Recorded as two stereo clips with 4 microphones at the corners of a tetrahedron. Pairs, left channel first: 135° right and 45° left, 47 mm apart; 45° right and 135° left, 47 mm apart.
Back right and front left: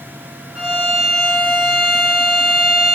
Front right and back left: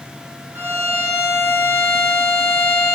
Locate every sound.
0.6 s a violin: 115° left, 2.5 m